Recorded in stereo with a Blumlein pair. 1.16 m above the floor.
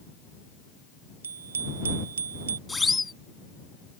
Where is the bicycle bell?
65° right.